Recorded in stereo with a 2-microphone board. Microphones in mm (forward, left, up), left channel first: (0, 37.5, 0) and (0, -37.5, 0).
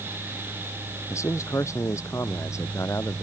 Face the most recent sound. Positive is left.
turn(degrees=40)  # may be behind; listen again after turning